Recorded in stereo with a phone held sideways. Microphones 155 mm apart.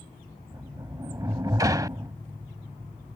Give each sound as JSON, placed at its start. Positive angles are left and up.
{"t": 0.5, "sound": "a sliding door", "side_deg": -25}